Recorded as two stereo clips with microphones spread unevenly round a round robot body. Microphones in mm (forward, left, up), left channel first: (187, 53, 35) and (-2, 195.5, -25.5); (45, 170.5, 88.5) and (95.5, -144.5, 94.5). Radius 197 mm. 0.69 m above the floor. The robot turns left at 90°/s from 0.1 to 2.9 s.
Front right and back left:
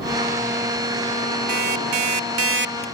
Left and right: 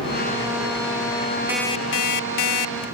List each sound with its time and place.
1.5 s an alarm clock: 165° right; by 2.9 s 75° left